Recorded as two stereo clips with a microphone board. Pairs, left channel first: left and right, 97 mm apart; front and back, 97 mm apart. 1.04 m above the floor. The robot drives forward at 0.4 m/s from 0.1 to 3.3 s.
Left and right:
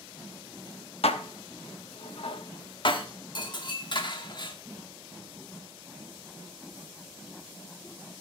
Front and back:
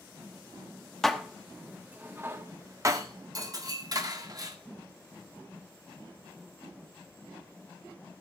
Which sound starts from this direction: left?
Dishes clattering, at 1.0 s.